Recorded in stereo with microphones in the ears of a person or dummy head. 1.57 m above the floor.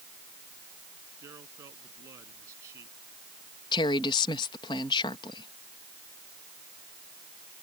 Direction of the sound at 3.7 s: 25° left (ahead or behind).